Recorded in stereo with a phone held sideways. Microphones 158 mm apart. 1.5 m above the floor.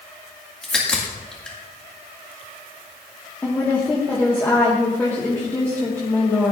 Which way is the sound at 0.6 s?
5° left (ahead or behind).